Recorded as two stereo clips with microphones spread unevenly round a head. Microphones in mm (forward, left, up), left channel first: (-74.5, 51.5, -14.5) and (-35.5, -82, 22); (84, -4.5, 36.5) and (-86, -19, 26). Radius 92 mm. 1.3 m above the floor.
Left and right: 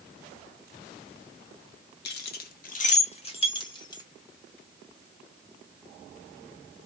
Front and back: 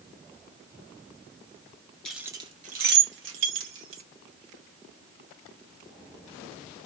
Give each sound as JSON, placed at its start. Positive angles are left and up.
{"t": 2.0, "sound": "keys jangling", "azimuth_deg": 90, "distance_m": 0.8}